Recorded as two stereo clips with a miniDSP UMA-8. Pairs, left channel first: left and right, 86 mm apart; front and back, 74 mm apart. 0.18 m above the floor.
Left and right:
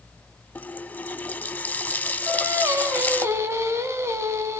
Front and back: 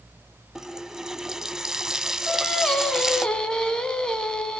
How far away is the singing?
About 1.7 m.